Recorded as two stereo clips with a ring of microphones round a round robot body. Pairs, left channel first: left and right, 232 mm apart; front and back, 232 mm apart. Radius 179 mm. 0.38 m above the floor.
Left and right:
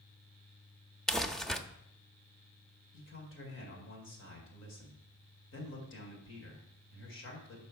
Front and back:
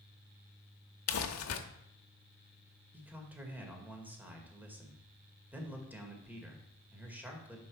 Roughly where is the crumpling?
Ahead.